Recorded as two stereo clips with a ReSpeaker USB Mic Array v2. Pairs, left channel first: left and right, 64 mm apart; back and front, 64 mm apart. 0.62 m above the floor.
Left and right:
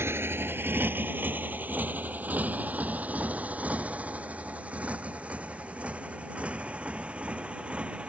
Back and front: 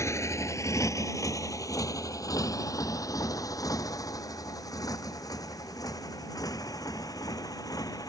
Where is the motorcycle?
140° right; by 8.1 s 160° right.